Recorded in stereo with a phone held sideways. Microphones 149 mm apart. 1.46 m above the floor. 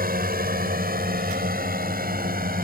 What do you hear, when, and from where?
0.0 s a drone: 80° right